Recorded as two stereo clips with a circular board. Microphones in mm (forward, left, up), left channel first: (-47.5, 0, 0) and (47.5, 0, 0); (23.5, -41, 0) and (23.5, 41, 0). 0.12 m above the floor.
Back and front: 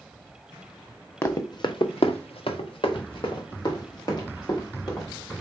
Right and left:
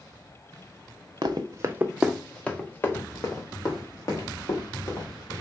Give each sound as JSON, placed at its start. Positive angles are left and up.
{"t": 1.2, "sound": "running footsteps", "azimuth_deg": 120, "distance_m": 0.8}